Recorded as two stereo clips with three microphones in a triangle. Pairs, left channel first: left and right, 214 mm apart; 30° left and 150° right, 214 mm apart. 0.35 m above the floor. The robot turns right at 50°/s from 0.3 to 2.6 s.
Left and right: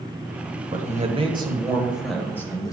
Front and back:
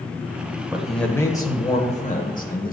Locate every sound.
0.7 s a man speaking: 70° right, 1.2 m; by 2.7 s 25° left, 1.2 m